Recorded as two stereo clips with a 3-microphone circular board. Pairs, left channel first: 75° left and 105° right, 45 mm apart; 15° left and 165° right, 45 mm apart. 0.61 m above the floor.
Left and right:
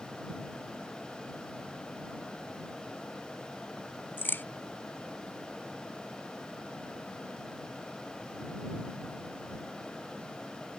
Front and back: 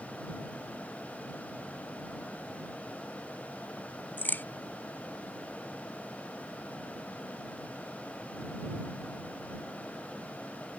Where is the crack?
50° left.